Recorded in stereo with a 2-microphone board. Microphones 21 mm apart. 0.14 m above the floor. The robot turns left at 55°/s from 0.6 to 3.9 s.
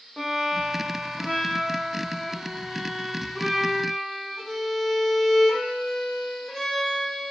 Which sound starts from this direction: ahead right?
A violin, at 0.2 s.